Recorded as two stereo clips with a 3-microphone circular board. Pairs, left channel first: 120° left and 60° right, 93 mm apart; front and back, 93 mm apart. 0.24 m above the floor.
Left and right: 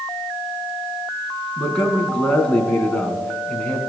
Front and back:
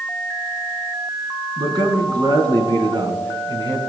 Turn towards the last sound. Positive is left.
turn(degrees=-165)